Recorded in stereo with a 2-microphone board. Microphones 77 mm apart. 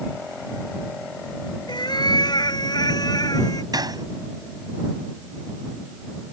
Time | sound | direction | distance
1.7 | a cat meowing | 70° left (ahead or behind) | ?
3.7 | a gunshot | 55° right (ahead or behind) | ?